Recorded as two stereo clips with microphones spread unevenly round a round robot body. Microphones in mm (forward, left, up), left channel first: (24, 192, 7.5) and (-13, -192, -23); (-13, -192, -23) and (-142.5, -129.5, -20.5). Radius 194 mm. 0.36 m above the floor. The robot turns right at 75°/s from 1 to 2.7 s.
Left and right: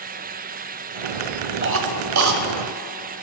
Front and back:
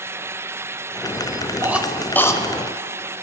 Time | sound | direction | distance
1.6 | a cough | 140° right | 1.6 m